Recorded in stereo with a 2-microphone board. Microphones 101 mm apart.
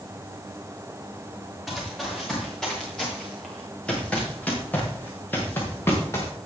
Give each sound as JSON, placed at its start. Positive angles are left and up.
{"t": 1.7, "sound": "running footsteps", "side_deg": 0, "distance_m": 6.5}